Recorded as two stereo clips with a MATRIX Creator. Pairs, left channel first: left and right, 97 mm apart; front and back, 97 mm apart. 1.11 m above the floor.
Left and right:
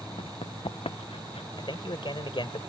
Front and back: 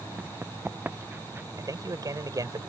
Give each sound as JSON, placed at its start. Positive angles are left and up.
{"t": 0.2, "sound": "running footsteps", "azimuth_deg": 105}
{"t": 1.6, "sound": "a man speaking", "azimuth_deg": 130}